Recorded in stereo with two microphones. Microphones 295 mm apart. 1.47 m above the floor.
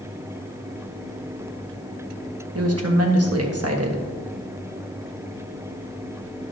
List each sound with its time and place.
2.5 s a woman speaking: 55° right (ahead or behind), 1.5 m